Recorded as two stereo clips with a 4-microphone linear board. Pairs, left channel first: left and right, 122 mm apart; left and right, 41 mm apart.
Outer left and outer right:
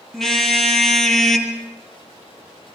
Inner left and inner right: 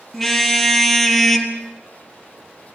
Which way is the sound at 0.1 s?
Centre (ahead or behind).